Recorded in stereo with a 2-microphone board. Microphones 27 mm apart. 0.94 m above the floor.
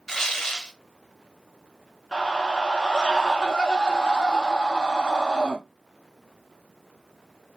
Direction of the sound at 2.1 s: 20° left (ahead or behind).